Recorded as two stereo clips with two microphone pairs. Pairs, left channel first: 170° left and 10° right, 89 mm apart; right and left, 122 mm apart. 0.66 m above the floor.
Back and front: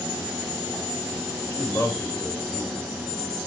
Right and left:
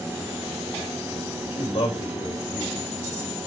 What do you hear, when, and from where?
1.5 s a man speaking: 130° right, 3.5 m